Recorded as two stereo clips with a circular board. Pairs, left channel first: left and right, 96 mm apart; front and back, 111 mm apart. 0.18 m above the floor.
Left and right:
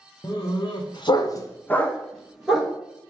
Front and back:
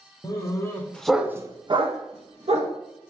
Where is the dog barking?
50° left, 0.9 m; by 2.7 s 175° right, 1.1 m.